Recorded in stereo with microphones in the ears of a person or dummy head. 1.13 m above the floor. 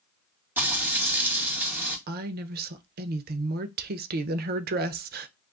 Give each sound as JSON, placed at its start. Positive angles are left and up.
{"t": 0.6, "sound": "frying", "side_deg": -10, "distance_m": 1.6}
{"t": 2.1, "sound": "a woman speaking", "side_deg": -45, "distance_m": 0.6}